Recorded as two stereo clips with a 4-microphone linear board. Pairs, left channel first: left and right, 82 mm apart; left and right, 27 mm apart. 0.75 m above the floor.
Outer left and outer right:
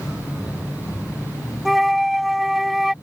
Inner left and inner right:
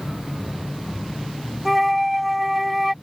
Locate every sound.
1.6 s a flute: centre (ahead or behind)